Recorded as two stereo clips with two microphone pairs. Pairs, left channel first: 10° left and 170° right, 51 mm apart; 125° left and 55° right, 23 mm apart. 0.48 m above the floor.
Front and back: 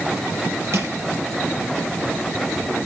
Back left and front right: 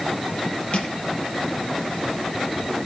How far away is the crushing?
About 4 m.